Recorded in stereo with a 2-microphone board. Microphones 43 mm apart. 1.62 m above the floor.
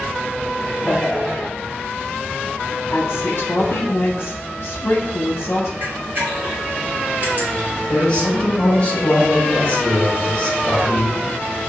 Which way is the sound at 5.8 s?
45° right (ahead or behind).